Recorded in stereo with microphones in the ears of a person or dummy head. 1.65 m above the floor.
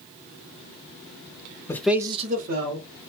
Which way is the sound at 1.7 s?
20° left (ahead or behind).